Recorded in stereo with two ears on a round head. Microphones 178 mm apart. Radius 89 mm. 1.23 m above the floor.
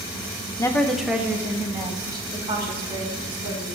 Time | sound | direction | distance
0.6 | a woman speaking | 15° left (ahead or behind) | 0.6 m